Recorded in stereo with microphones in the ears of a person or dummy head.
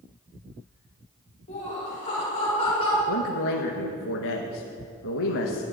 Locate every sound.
1.5 s laughter: 40° left (ahead or behind), 4 m; by 3.0 s 35° left (ahead or behind), 5 m
3.1 s a man speaking: 75° left (ahead or behind), 1.0 m